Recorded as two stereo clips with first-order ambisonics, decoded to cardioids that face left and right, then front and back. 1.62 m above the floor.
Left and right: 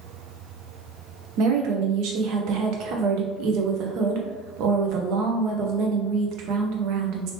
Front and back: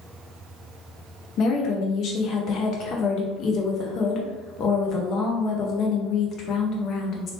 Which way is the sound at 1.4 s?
55° right.